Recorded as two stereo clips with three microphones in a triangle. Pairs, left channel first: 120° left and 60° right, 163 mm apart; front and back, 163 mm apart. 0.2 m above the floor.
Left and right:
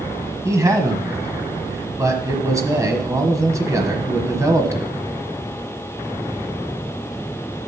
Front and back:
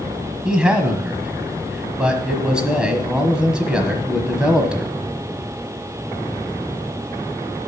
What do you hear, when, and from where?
0.5 s a man speaking: 100° right, 1.2 m